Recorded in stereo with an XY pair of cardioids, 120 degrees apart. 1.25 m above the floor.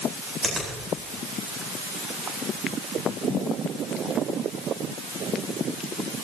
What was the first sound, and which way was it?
A finger snap, 20° right.